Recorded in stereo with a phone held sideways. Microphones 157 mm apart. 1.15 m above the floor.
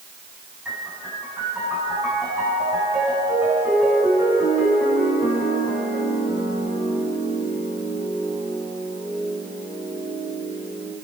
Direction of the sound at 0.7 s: 10° right (ahead or behind).